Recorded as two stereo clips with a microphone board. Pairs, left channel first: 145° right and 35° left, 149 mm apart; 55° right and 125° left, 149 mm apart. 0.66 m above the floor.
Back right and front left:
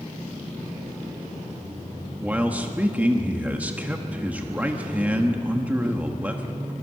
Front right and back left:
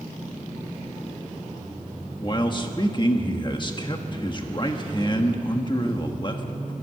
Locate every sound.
2.2 s a man speaking: 35° right, 1.3 m